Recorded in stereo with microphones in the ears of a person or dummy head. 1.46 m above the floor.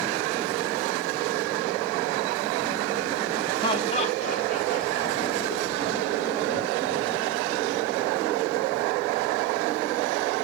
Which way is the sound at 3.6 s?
25° left (ahead or behind).